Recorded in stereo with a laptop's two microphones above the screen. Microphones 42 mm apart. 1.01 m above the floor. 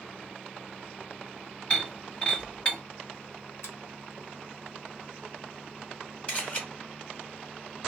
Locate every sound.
1.7 s breaking glass: 25° left (ahead or behind), 1.5 m
3.6 s a finger snap: 85° left, 0.9 m
6.3 s a camera shutter: 30° left (ahead or behind), 1.7 m